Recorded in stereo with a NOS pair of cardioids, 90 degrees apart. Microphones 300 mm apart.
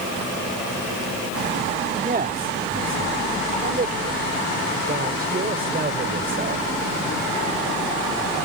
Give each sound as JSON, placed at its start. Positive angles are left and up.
{"t": 2.0, "sound": "a man speaking", "azimuth_deg": -30}